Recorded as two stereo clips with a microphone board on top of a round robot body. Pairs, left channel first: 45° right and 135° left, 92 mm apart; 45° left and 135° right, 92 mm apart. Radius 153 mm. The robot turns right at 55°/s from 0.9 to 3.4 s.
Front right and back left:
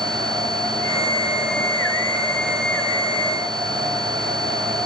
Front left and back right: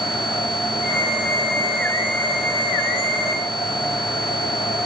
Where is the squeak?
I don't hear a squeak.